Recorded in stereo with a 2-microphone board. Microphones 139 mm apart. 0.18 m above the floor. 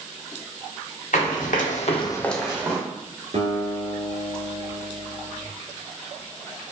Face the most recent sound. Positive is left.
turn(degrees=-60)  # may be behind; listen again after turning